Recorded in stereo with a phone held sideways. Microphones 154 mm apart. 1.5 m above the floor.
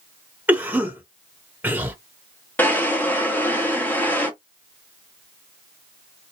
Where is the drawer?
10° left (ahead or behind), 0.9 m.